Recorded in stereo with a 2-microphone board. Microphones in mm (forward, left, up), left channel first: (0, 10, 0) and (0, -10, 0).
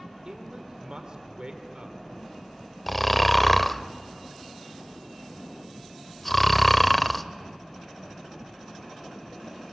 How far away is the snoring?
About 0.5 m.